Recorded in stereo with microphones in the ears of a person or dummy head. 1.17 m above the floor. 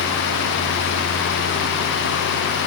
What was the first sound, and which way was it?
Only background noise.